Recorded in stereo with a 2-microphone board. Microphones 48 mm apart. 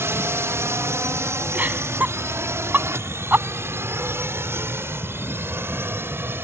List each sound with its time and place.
0.0 s a drone: 60° right (ahead or behind); by 6.4 s 55° right (ahead or behind)
1.5 s laughter: 40° right (ahead or behind)